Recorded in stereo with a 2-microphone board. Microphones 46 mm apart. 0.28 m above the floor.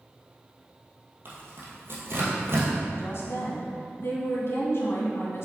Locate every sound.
1.2 s tearing paper: 50° right (ahead or behind), 2 m
3.0 s a woman speaking: 60° left (ahead or behind), 1.9 m